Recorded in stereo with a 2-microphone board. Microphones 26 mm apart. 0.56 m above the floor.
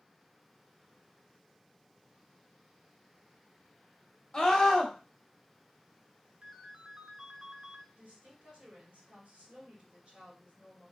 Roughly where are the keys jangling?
I don't hear keys jangling.